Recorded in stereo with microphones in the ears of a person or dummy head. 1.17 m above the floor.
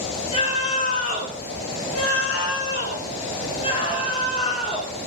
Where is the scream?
25° left (ahead or behind), 2.5 m.